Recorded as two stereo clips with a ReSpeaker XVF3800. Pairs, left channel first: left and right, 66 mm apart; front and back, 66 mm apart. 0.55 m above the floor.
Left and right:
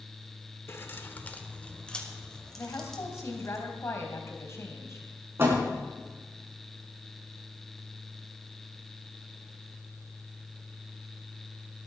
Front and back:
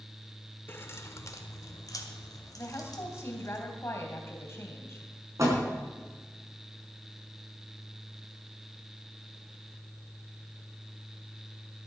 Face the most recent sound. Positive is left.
turn(degrees=-140)